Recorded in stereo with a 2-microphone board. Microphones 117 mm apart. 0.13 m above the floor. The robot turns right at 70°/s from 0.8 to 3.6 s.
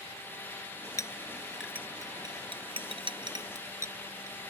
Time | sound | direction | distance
1.0 | a clink | 30° left (ahead or behind) | ?